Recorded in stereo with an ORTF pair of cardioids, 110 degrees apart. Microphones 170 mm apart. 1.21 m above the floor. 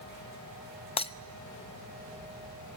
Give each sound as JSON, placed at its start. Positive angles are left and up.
{"t": 1.0, "sound": "breaking glass", "azimuth_deg": 35, "distance_m": 0.8}